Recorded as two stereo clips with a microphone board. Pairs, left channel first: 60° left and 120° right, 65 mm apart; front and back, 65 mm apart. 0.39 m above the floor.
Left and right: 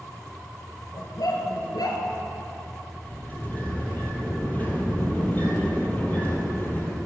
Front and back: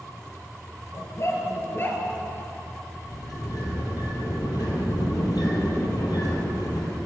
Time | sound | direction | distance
0.9 | a dog barking | 40° left | 3 m
3.0 | a sliding door | straight ahead | 3.5 m